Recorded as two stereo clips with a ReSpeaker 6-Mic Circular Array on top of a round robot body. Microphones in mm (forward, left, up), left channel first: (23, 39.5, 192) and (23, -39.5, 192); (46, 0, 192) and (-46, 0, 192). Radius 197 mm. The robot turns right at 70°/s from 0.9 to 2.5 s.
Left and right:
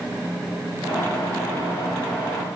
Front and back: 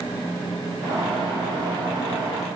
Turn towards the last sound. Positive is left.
No sound to turn to.